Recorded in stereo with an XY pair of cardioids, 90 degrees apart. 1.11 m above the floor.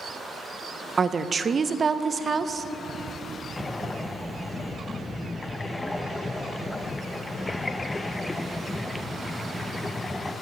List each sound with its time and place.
1.0 s a woman speaking: 40° right, 0.6 m
3.6 s breathing: 20° left, 0.5 m